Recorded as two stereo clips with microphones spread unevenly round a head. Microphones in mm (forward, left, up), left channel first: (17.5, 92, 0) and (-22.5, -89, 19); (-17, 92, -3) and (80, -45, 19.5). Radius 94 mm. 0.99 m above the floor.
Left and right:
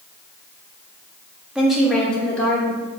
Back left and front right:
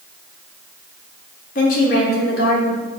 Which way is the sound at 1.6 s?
170° left.